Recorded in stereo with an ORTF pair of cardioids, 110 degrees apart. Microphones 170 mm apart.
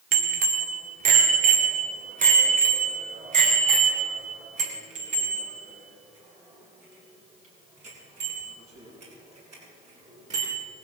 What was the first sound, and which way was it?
A bicycle bell, 55° right.